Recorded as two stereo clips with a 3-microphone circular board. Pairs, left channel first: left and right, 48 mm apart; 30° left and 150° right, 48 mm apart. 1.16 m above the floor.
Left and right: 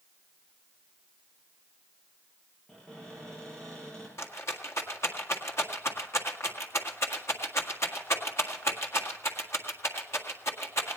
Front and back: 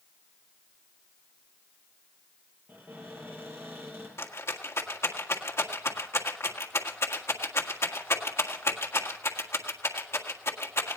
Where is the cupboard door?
170° left, 8 m.